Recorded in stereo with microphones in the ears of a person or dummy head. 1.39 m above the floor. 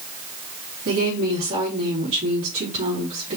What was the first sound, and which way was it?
A woman speaking, 45° right (ahead or behind).